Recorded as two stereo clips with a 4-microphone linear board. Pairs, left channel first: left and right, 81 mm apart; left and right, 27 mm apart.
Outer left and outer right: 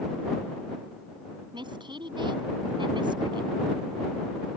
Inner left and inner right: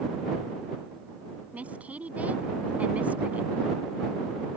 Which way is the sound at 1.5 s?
75° right (ahead or behind).